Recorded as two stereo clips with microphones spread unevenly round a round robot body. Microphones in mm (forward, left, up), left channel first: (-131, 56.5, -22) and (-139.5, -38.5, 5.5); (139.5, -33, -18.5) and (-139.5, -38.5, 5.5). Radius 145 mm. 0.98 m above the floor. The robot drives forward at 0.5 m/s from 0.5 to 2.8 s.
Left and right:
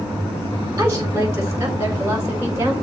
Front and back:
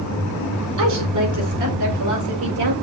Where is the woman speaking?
155° right, 4 m; by 2.7 s 160° right, 5 m.